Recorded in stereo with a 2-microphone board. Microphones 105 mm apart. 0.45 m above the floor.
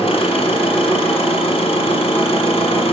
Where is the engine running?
70° left (ahead or behind), 2 m.